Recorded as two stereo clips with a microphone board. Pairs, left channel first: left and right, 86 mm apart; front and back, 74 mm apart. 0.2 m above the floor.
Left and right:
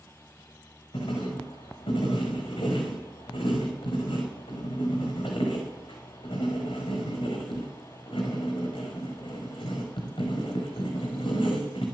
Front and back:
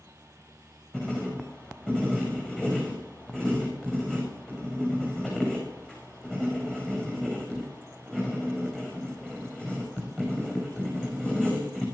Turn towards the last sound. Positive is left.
turn(degrees=80)